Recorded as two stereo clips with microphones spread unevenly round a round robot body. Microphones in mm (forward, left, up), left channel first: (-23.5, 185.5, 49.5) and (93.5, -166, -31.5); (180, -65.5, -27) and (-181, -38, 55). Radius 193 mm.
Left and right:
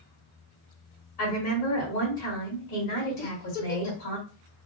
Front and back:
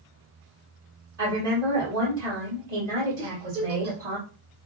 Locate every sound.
1.2 s a woman speaking: 125° left, 1.2 m
3.2 s a giggle: 120° left, 1.0 m